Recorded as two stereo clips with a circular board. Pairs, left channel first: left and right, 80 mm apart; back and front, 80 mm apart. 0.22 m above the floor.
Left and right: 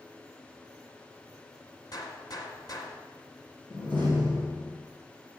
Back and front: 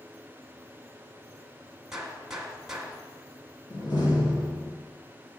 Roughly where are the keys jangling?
I don't hear keys jangling.